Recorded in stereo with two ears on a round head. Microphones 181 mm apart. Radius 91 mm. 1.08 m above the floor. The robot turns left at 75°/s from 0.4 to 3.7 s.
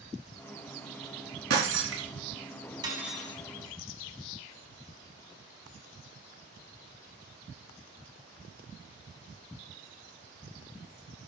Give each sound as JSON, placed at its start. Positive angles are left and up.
{"t": 1.5, "sound": "breaking glass", "azimuth_deg": -55, "distance_m": 4.0}
{"t": 2.8, "sound": "cutlery clinking", "azimuth_deg": -160, "distance_m": 4.5}